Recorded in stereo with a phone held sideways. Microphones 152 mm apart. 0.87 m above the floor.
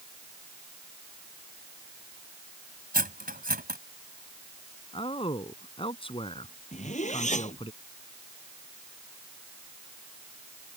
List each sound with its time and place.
2.9 s cutlery clinking: 70° right (ahead or behind)
4.9 s a man speaking: 35° left (ahead or behind)
6.7 s a zipper: 50° left (ahead or behind)